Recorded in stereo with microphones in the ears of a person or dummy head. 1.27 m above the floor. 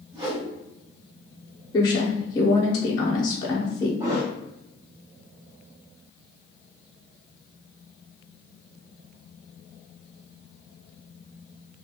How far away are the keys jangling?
No keys jangling in this recording.